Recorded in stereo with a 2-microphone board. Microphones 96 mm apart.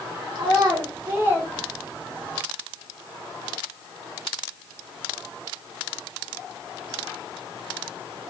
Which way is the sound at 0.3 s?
50° right (ahead or behind).